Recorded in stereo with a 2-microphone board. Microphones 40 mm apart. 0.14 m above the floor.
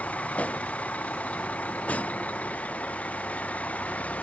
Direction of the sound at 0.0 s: 35° left (ahead or behind).